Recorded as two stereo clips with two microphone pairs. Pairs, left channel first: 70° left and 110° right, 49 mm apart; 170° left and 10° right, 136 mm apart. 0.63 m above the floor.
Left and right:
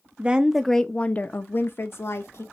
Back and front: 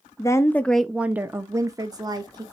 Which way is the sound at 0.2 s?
150° right.